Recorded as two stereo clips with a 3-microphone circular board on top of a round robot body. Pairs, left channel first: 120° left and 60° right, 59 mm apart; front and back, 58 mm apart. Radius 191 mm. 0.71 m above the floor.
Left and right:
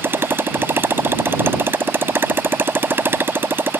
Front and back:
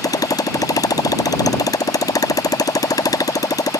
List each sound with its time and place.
0.0 s a motorcycle: 5° right